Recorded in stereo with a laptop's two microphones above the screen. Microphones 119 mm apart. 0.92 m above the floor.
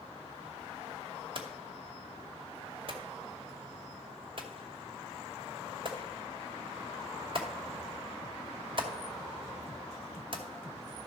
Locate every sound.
1.4 s hammering: 45° right (ahead or behind), 2 m